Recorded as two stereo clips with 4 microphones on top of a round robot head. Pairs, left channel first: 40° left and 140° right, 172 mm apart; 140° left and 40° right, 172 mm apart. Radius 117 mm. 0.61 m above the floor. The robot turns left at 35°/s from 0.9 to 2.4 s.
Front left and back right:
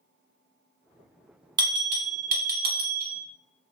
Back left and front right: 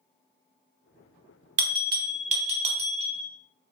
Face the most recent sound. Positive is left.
turn(degrees=-95)